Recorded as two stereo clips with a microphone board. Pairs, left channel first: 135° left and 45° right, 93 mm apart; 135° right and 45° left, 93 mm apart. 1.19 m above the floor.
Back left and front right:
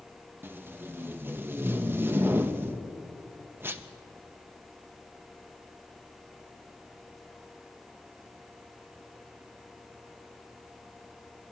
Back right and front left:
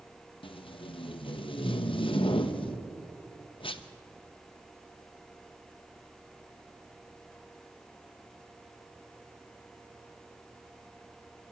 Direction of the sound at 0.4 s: 110° right.